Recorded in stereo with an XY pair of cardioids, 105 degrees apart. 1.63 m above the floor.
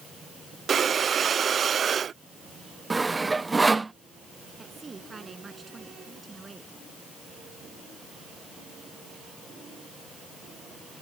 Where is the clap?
No clap in this recording.